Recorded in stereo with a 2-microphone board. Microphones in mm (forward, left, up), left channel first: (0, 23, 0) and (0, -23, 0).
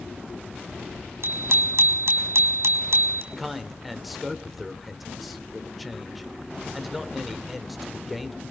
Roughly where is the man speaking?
Centre.